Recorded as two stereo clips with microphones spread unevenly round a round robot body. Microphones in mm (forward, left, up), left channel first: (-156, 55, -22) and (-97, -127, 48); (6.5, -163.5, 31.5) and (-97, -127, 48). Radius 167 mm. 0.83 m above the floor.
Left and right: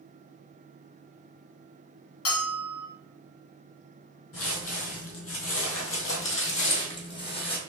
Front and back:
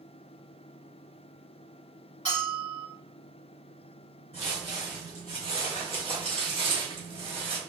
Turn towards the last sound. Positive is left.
turn(degrees=150)